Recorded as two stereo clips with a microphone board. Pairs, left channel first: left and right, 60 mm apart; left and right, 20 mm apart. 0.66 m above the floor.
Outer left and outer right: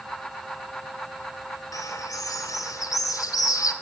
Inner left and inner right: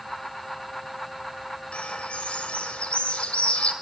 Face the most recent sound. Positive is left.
turn(degrees=75)  # may be behind; listen again after turning